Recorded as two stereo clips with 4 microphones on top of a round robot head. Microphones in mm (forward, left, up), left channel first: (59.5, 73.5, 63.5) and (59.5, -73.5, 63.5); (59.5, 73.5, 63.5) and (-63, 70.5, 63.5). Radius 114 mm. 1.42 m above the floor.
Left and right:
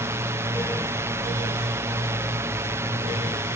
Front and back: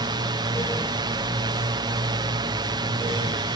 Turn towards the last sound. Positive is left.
turn(degrees=-155)